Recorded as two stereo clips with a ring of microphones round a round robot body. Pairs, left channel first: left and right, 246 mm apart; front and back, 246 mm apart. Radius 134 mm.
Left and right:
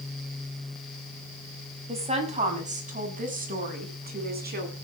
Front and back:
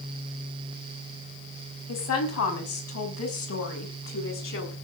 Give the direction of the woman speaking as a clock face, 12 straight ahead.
1 o'clock.